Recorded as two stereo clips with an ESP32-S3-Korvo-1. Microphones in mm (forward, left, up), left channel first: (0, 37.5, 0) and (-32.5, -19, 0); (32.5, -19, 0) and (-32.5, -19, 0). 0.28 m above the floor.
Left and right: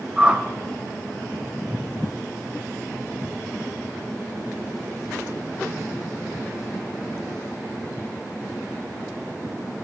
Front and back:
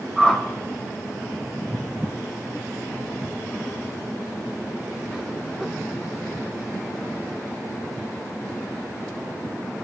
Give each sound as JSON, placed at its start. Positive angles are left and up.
{"t": 0.2, "sound": "a whoosh", "azimuth_deg": -95, "distance_m": 1.0}